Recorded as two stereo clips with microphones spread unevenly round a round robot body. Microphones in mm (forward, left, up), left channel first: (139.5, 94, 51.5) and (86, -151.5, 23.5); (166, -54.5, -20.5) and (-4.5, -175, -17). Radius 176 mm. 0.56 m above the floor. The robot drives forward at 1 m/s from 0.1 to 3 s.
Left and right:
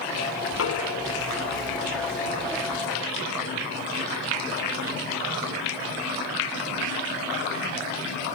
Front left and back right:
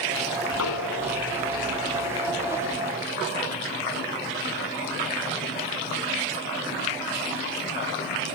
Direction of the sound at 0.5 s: 45° left.